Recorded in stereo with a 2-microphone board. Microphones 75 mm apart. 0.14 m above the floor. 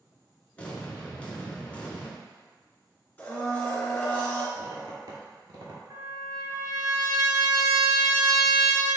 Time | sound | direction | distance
0.6 | an explosion | 15° left (ahead or behind) | 0.8 m
3.2 | a blender | 20° left (ahead or behind) | 1.6 m
4.5 | a squeak | 60° right (ahead or behind) | 0.9 m
5.9 | a trumpet | 50° right (ahead or behind) | 0.9 m